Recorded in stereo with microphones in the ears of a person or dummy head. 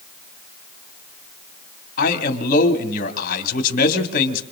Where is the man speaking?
50° left (ahead or behind), 2.5 m.